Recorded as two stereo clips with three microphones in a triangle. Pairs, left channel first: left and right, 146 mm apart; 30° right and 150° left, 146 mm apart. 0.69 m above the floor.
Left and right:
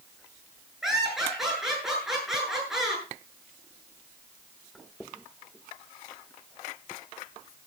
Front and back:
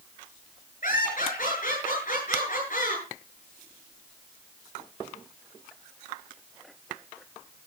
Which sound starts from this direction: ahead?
Laughter, at 0.8 s.